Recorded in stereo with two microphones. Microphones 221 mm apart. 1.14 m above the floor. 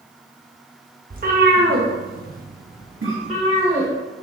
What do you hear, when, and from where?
1.1 s a cat meowing: 40° right (ahead or behind), 0.9 m; by 3.9 s 30° right (ahead or behind), 1.6 m
3.0 s a cough: 70° right (ahead or behind), 1.8 m